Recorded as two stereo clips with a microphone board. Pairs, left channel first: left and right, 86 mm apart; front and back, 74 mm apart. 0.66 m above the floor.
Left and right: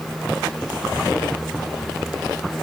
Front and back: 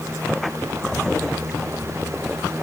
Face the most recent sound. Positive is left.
No sound to turn to.